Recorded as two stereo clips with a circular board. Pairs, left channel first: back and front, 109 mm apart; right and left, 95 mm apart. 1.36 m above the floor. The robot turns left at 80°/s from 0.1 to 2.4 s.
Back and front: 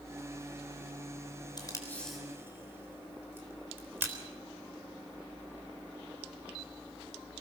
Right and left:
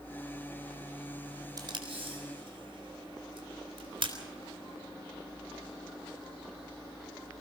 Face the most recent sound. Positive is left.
turn(degrees=70)